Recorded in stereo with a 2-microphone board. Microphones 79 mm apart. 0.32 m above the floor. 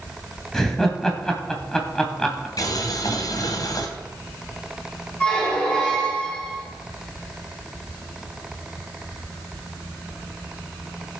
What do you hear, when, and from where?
0.5 s laughter: 5° left (ahead or behind), 1.9 m
2.6 s boiling: 55° left (ahead or behind), 1.7 m
5.2 s a squeak: 15° left (ahead or behind), 5.5 m